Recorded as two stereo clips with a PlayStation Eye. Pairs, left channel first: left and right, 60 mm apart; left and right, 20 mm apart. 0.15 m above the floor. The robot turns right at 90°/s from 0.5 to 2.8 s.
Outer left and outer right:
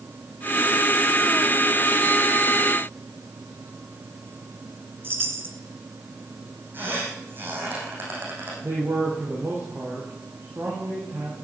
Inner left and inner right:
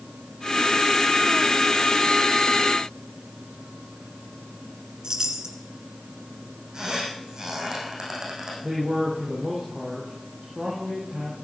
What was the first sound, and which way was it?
A chime, 40° right (ahead or behind).